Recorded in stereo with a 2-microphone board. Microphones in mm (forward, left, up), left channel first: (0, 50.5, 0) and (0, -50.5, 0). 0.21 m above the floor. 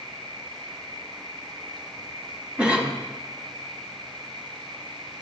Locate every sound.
0.0 s an insect: 50° right (ahead or behind), 1.5 m
2.6 s a cough: 10° right (ahead or behind), 1.3 m